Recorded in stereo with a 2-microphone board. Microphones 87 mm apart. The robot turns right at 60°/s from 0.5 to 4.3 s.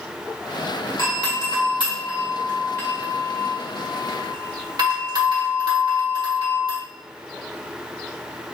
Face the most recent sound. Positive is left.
turn(degrees=-50)  # may be behind; listen again after turning